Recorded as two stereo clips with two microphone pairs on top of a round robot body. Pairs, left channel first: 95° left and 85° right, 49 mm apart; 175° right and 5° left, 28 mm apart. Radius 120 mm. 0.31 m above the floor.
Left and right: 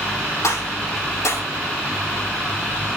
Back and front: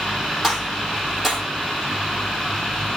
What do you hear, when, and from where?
0.4 s a gunshot: 90° left, 6.5 m